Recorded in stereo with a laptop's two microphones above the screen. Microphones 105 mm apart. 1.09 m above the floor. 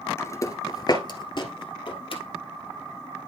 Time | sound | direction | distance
0.2 | footsteps | 25° left (ahead or behind) | 1.2 m